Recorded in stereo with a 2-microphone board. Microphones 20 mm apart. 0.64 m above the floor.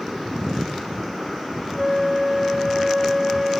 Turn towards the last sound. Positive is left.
turn(degrees=-25)  # may be behind; listen again after turning